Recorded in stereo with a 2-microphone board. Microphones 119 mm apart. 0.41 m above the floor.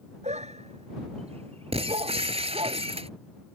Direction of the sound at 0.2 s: 80° right.